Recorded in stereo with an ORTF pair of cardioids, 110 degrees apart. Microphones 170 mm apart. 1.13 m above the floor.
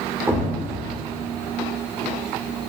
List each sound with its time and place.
0.3 s a thud: 15° right, 1.6 m